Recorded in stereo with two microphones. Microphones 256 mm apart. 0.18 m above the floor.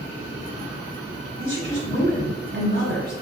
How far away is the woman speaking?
About 1.2 m.